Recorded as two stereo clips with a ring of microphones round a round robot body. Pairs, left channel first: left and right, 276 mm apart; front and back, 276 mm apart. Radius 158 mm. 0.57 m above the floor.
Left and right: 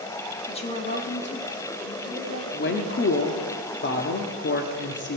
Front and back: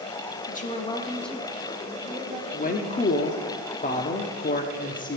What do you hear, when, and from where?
0.5 s a woman speaking: 30° left, 1.3 m; by 3.5 s 125° left, 3 m
2.5 s a woman speaking: 55° left, 1.2 m